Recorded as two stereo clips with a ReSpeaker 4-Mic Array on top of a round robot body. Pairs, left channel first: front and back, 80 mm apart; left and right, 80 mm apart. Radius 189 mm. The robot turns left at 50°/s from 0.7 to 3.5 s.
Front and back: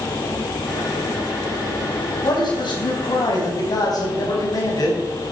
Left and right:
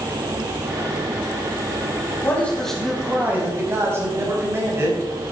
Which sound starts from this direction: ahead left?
A man speaking, at 2.2 s.